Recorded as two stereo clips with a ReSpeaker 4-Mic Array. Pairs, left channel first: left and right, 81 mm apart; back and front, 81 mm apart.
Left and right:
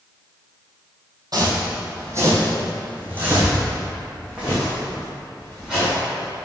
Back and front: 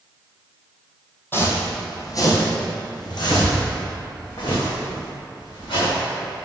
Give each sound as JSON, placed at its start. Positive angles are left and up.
{"t": 1.3, "sound": "footsteps", "azimuth_deg": -120, "distance_m": 1.7}